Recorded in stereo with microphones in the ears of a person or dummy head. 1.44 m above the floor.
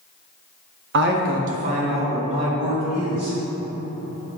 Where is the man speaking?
60° right (ahead or behind), 0.5 m; by 3.4 s 30° right (ahead or behind), 2 m.